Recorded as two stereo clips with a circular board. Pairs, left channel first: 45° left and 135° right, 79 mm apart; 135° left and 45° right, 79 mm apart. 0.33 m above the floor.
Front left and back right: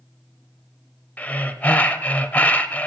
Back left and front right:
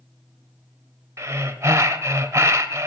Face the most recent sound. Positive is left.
turn(degrees=-15)